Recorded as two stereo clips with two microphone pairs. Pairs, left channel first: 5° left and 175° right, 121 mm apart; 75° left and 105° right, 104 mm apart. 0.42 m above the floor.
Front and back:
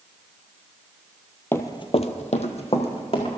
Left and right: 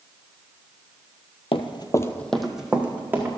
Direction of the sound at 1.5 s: 75° left.